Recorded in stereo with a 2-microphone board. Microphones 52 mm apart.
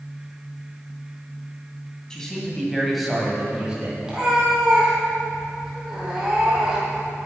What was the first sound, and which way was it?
A man speaking, 15° left (ahead or behind).